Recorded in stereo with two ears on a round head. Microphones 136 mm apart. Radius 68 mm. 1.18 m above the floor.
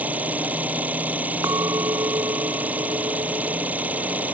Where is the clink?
20° right (ahead or behind).